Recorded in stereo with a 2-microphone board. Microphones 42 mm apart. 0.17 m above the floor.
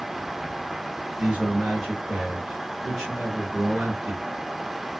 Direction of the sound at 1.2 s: 15° right (ahead or behind).